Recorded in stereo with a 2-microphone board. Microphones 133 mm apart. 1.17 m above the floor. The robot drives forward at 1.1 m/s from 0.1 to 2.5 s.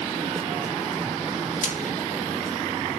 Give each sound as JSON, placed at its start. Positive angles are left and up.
{"t": 1.6, "sound": "frying", "side_deg": 65, "distance_m": 1.2}